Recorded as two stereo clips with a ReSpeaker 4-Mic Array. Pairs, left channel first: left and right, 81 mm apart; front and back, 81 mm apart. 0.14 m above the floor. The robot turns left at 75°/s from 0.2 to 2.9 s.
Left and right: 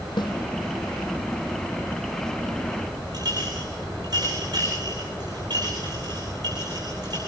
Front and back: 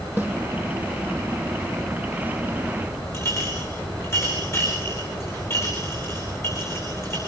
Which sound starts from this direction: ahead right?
A clink, at 3.1 s.